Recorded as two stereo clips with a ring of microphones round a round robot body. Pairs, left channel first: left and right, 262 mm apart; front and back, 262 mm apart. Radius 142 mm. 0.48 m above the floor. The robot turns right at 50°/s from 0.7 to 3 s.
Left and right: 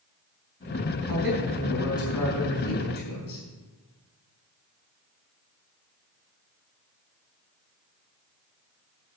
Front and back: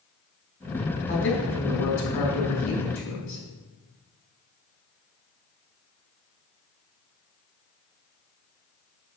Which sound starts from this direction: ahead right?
A man speaking, at 1.1 s.